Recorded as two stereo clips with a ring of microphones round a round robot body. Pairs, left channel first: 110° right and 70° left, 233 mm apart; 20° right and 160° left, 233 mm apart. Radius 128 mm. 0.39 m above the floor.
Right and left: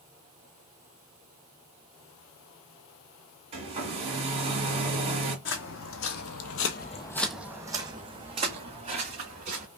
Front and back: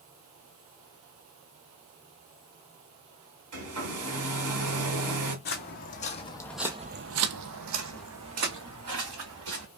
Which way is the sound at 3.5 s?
135° left.